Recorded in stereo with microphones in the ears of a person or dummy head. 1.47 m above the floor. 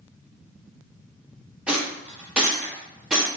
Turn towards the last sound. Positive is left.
turn(degrees=-5)  # may be behind; listen again after turning